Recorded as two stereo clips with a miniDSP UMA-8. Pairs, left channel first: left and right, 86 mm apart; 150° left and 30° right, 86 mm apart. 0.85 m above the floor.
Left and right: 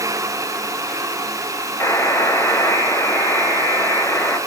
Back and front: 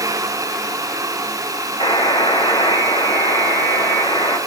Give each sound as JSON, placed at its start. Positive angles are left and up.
{"t": 1.8, "sound": "a buzzer", "azimuth_deg": 155, "distance_m": 5.0}